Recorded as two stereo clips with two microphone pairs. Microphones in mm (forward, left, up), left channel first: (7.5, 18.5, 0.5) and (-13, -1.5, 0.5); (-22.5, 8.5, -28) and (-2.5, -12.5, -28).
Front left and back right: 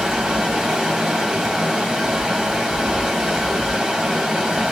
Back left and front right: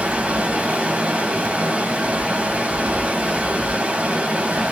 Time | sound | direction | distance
0.0 | running water | 65° right | 1.9 m